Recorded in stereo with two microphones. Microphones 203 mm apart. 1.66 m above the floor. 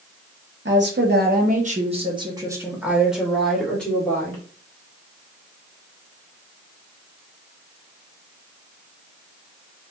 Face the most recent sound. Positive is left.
turn(degrees=10)  # may be behind; listen again after turning